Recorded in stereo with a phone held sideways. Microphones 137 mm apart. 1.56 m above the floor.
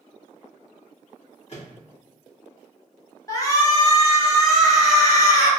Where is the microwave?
50° left (ahead or behind), 1.5 m.